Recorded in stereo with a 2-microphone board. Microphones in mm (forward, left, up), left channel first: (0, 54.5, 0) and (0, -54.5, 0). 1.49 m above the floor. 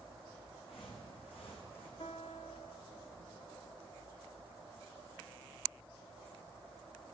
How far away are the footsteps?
About 4.5 m.